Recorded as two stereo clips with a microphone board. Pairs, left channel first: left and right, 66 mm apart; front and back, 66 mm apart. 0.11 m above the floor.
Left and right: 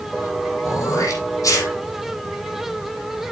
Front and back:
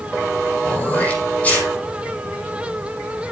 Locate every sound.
0.6 s throat clearing: 65° left, 5.5 m